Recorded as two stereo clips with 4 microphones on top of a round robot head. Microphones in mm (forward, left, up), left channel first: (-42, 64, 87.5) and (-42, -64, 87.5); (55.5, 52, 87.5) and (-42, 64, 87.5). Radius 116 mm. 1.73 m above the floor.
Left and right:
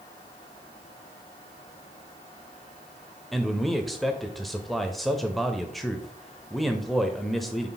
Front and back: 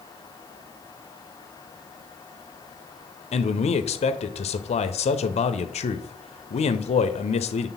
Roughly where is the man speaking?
Ahead.